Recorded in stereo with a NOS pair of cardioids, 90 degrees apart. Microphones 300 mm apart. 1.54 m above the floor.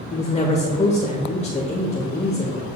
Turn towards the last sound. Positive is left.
turn(degrees=20)